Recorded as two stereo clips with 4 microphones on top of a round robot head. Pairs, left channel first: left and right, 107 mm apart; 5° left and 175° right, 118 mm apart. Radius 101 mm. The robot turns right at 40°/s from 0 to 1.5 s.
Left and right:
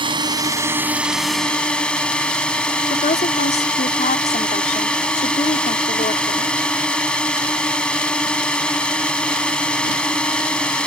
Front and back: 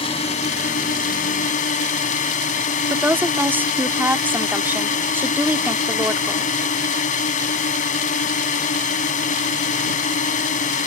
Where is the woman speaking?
110° left.